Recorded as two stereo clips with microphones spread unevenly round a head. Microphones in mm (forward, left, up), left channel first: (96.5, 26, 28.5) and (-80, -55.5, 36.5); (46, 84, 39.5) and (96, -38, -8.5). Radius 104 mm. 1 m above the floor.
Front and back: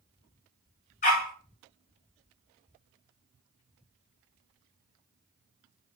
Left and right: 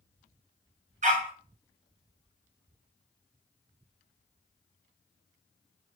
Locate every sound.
1.0 s a dog barking: 30° right, 1.3 m